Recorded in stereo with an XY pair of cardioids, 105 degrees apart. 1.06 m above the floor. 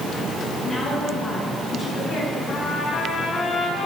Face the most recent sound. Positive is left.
turn(degrees=50)